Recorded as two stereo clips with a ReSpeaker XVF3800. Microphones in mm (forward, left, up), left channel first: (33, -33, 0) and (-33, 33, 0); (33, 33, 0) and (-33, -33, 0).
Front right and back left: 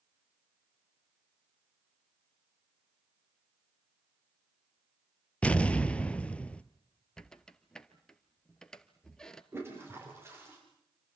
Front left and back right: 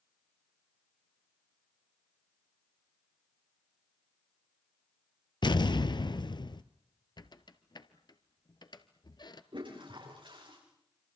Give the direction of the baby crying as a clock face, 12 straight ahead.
No baby crying in this recording.